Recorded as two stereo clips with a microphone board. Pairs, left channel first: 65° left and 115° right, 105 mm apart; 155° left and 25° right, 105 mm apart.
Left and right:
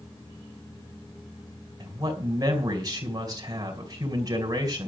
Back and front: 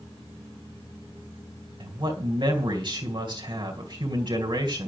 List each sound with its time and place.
1.8 s a man speaking: 60° right, 2.5 m